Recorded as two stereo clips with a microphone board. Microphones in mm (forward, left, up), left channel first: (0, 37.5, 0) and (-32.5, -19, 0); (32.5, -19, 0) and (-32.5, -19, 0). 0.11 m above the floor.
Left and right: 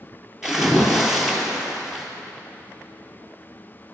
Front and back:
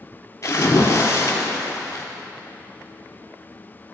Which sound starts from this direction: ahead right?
A splash, at 0.4 s.